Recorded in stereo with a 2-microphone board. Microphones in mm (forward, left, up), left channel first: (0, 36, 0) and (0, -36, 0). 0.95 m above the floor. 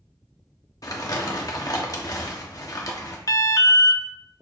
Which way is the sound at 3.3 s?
50° left (ahead or behind).